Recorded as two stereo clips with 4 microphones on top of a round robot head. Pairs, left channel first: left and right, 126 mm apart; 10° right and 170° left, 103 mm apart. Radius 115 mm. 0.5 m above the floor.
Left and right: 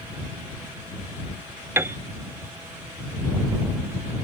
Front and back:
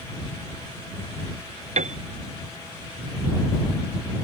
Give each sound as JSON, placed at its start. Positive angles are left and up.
{"t": 1.8, "sound": "a piano", "azimuth_deg": -165}